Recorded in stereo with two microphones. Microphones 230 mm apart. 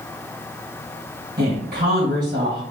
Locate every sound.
1.4 s a woman speaking: 45° right (ahead or behind), 2.5 m